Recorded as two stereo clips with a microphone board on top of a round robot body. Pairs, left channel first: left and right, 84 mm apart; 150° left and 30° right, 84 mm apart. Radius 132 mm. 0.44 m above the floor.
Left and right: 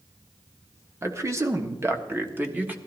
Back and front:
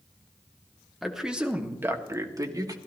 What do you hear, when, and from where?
1.0 s a man speaking: 120° right, 1.7 m; by 2.8 s 25° right, 1.9 m